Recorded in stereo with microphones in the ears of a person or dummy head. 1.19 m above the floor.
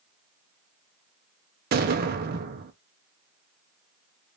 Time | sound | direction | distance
1.7 | an explosion | 45° right (ahead or behind) | 0.7 m